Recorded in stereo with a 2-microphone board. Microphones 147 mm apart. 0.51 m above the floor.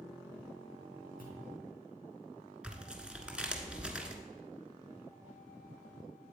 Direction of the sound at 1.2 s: 75° left (ahead or behind).